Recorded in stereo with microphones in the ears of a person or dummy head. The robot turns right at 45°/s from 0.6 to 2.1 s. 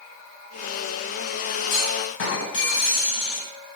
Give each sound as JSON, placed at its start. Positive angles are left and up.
{"t": 1.7, "sound": "a clunk", "side_deg": 60, "distance_m": 1.3}